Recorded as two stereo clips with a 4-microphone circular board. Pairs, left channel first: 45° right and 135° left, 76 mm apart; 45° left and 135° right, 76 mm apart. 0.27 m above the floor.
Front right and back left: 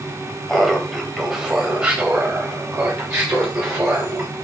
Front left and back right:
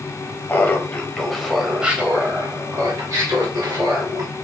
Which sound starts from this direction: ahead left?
Laughter, at 0.5 s.